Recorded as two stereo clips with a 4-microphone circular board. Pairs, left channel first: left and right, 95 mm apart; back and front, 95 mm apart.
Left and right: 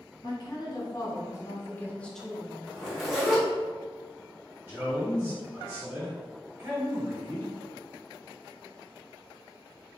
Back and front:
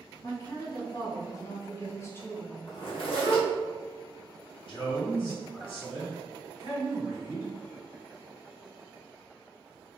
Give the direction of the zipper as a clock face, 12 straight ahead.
6 o'clock.